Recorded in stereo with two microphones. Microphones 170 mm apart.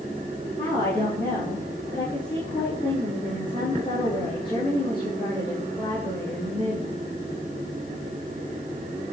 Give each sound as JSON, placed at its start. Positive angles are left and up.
{"t": 0.6, "sound": "a woman speaking", "side_deg": 30, "distance_m": 5.5}